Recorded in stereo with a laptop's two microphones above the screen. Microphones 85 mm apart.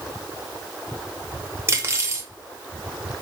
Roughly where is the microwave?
I don't hear a microwave.